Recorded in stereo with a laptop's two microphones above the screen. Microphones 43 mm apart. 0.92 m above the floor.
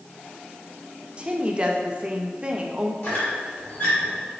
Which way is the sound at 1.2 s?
30° right (ahead or behind).